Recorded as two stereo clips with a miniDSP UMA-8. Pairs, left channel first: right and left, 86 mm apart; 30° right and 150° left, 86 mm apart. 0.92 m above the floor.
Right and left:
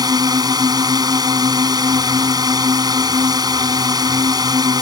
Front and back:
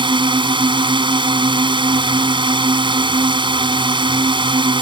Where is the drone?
130° left.